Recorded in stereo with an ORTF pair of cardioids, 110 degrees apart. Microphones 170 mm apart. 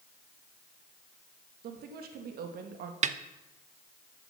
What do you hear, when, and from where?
1.6 s a woman speaking: 65° right, 2 m
3.0 s a snare drum: 45° right, 0.9 m